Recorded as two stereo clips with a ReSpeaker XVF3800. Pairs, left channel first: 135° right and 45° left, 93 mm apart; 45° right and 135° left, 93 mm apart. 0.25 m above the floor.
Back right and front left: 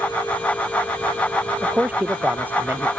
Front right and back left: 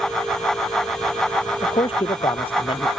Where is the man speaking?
25° right.